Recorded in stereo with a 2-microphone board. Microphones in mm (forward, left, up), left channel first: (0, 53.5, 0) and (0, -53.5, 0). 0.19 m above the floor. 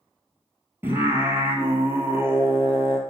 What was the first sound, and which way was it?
Singing, 20° right (ahead or behind).